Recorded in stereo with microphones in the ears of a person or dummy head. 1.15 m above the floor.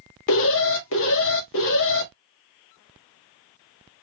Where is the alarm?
70° left (ahead or behind), 1.6 m.